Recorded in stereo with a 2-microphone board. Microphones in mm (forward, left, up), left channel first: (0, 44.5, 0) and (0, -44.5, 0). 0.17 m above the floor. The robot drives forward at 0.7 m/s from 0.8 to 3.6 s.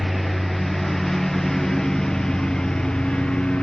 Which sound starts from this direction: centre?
A lawn mower, at 0.0 s.